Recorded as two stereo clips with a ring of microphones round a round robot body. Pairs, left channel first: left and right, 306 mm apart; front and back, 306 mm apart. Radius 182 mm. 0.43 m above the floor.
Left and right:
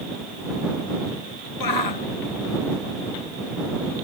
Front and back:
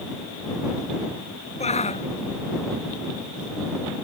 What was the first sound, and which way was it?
A shout, 70° left.